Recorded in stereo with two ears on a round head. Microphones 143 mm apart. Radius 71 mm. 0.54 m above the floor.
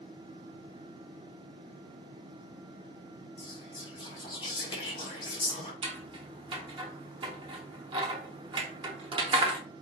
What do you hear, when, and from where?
3.4 s whispering: 30° left (ahead or behind), 1.5 m
5.8 s scissors: 30° right (ahead or behind), 0.8 m